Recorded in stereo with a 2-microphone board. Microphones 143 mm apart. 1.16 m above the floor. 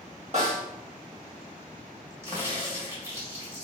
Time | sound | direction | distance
0.3 | a snare drum | 50° right (ahead or behind) | 1.3 m
2.2 | a crack | 20° right (ahead or behind) | 1.6 m